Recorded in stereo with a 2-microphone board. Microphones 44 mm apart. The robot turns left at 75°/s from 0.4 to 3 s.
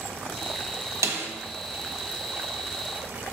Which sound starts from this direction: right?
A snare drum, at 1.0 s.